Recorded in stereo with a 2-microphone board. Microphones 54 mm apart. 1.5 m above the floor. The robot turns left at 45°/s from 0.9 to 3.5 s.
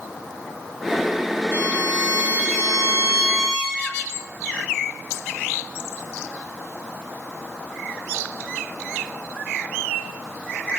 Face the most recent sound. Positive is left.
turn(degrees=-145)